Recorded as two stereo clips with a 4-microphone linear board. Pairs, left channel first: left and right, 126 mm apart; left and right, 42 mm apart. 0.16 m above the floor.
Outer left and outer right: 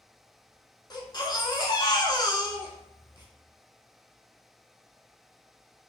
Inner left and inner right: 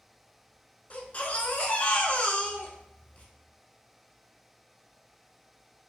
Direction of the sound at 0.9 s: 35° left (ahead or behind).